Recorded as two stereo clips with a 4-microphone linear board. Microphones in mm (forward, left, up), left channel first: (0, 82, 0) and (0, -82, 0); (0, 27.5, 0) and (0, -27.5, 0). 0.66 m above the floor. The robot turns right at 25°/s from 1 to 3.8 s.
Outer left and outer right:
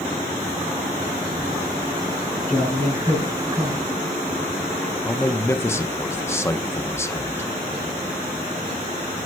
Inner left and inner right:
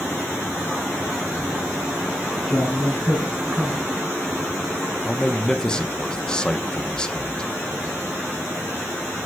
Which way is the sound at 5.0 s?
15° left (ahead or behind).